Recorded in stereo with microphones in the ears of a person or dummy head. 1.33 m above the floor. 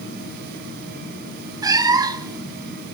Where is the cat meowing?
25° right (ahead or behind), 1.5 m.